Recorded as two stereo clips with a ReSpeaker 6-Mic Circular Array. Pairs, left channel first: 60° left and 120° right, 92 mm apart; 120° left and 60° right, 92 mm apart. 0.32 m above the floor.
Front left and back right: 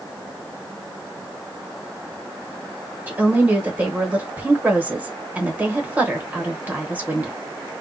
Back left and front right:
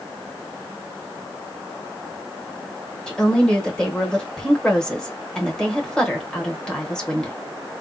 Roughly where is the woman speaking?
Behind.